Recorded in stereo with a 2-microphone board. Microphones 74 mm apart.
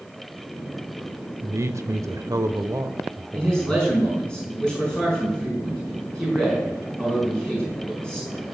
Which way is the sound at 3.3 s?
10° left (ahead or behind).